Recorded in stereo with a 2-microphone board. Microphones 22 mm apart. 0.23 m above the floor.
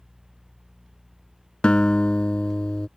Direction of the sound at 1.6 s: 50° left (ahead or behind).